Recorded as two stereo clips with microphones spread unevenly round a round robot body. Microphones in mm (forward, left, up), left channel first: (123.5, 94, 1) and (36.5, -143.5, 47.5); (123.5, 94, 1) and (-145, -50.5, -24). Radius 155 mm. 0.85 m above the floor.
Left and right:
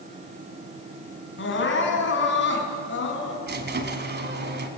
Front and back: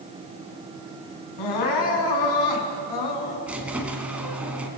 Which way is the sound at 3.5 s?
65° right.